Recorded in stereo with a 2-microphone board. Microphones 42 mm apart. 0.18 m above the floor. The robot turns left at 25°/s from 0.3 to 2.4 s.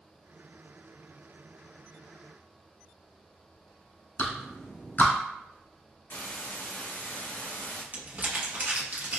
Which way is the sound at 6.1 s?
65° left (ahead or behind).